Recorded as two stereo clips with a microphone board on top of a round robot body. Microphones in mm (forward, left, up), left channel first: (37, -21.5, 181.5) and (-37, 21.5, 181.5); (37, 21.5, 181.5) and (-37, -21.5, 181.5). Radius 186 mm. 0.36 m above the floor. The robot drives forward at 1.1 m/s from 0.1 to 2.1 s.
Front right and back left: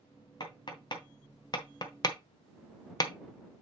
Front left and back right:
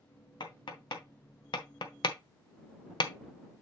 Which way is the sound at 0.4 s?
5° left.